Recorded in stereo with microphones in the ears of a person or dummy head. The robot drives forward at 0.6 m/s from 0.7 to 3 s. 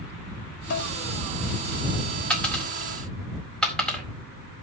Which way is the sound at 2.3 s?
10° left (ahead or behind).